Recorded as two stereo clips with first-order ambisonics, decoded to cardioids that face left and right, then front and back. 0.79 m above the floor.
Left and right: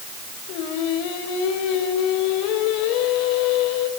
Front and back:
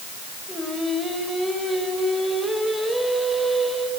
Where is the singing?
90° left, 4 m.